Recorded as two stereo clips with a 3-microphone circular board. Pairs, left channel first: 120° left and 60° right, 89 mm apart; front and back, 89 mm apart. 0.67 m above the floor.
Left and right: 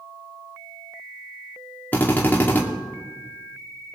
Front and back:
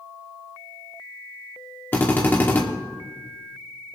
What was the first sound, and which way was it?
A drill, 60° left.